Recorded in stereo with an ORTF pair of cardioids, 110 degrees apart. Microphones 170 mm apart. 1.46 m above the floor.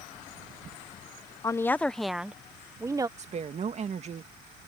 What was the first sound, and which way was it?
A woman speaking, 20° left.